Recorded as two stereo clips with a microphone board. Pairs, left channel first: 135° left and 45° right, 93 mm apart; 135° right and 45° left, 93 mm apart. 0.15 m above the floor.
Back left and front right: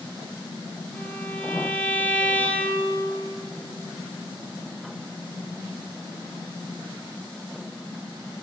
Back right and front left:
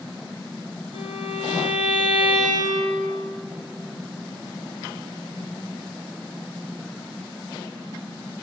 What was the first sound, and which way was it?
A violin, 70° left.